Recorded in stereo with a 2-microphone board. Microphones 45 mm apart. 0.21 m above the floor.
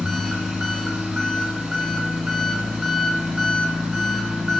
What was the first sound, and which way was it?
An engine running, 5° right (ahead or behind).